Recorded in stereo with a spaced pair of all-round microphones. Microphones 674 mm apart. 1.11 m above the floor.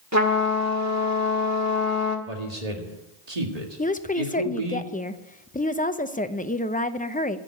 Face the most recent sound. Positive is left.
turn(degrees=15)  # may be behind; listen again after turning